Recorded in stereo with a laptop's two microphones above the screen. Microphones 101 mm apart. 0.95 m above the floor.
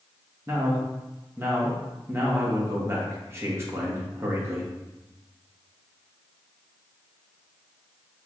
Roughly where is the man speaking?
Right.